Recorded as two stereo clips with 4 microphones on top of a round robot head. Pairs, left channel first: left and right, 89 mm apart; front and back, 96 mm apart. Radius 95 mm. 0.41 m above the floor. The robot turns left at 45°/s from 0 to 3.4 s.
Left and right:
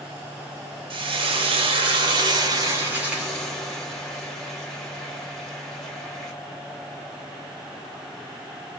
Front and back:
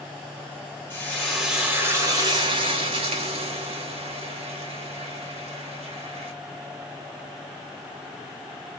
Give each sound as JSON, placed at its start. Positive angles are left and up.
{"t": 0.9, "sound": "frying", "azimuth_deg": -70, "distance_m": 0.8}